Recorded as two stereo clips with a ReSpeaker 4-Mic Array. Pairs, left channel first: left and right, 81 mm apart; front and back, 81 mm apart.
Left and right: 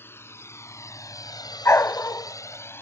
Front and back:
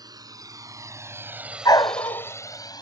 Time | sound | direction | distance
0.0 | a drone | 150° left | ?
1.6 | a dog barking | 35° left | ?